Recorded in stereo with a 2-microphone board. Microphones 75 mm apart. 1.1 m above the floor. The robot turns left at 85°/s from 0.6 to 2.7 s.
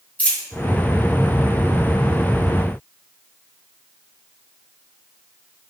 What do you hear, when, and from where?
0.2 s a dropped coin: 20° left (ahead or behind), 0.9 m